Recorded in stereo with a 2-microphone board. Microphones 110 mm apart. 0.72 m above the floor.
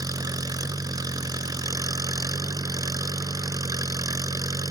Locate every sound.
0.0 s an engine running: 35° right (ahead or behind)